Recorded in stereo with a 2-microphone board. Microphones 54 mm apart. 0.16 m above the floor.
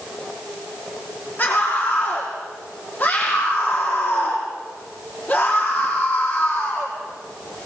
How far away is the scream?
About 5.5 m.